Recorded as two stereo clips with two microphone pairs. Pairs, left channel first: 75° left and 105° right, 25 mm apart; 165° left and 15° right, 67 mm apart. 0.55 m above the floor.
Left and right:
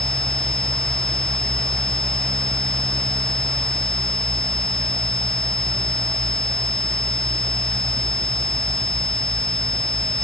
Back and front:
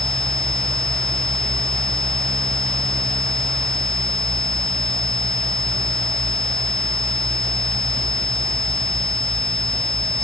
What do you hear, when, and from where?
Only background noise.